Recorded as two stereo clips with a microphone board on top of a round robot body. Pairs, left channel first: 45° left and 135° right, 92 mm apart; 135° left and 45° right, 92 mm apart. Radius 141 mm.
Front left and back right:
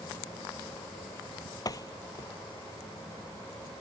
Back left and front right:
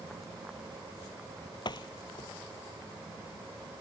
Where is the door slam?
95° left.